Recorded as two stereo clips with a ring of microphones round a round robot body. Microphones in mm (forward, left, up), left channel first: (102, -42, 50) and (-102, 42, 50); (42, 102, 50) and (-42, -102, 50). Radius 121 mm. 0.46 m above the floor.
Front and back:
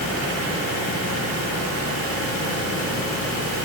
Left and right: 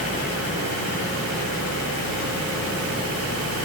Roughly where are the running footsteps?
I don't hear running footsteps.